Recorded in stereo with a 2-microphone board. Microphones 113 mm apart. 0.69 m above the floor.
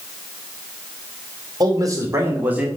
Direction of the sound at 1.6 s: 35° right (ahead or behind).